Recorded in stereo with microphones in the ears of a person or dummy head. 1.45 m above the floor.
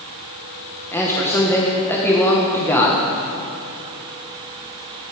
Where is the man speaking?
10° left (ahead or behind), 1.5 m.